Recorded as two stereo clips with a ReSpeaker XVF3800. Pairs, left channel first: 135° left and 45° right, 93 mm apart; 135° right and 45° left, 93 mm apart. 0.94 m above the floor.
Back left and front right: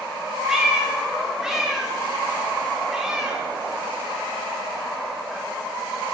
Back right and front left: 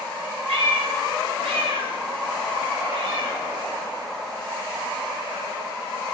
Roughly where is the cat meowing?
Ahead left.